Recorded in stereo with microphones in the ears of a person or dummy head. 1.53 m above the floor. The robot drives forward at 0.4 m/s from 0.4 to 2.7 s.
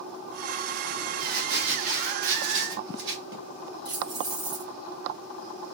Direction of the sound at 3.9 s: 25° right (ahead or behind).